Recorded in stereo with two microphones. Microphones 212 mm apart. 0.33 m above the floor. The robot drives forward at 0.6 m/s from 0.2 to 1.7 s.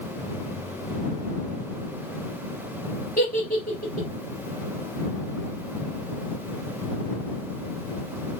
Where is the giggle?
45° left (ahead or behind), 1.5 m.